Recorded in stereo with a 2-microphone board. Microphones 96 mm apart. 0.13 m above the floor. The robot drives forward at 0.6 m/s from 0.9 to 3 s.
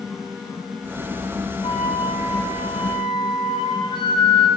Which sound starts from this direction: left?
A flute, at 1.6 s.